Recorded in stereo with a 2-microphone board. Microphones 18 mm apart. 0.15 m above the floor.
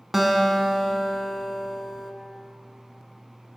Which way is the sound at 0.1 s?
15° right (ahead or behind).